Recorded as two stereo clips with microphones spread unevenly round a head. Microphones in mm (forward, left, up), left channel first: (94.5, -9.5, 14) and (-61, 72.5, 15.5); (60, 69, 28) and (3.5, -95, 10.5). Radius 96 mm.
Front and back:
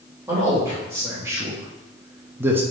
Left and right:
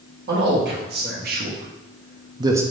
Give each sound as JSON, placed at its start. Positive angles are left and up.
{"t": 0.3, "sound": "a man speaking", "azimuth_deg": -130, "distance_m": 1.4}